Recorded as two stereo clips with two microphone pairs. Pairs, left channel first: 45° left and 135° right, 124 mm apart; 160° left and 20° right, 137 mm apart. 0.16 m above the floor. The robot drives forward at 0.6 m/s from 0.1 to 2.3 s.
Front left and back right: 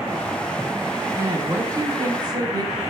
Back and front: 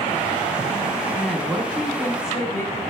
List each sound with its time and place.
1.1 s a woman speaking: 100° right, 1.3 m; by 2.8 s 150° right, 1.5 m